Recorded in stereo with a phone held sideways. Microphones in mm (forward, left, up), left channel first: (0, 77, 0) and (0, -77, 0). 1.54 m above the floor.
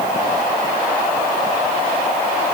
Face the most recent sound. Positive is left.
No sound to turn to.